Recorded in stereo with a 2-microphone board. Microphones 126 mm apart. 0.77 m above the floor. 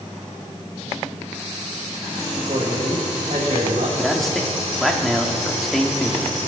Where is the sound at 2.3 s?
70° right (ahead or behind), 3 m.